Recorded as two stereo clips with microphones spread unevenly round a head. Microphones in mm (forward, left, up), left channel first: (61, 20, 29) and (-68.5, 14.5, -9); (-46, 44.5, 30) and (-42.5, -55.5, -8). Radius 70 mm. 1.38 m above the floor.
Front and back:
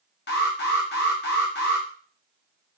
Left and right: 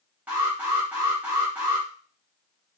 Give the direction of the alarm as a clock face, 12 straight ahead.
12 o'clock.